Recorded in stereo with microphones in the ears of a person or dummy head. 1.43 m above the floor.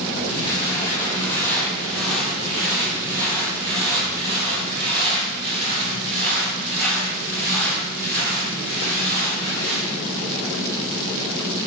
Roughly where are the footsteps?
Left.